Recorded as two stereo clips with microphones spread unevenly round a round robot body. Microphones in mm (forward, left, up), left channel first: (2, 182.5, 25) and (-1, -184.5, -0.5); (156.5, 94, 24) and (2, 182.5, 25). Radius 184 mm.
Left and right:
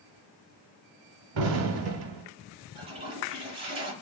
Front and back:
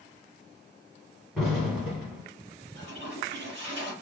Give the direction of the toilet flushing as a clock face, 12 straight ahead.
6 o'clock.